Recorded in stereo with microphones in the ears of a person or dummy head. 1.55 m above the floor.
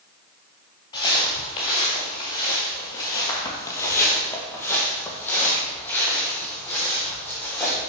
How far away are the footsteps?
About 1.7 m.